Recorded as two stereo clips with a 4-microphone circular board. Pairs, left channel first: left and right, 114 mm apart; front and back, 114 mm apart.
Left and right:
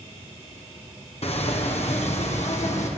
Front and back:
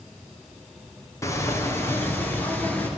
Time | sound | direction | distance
1.2 | footsteps | 65° left | 4.5 m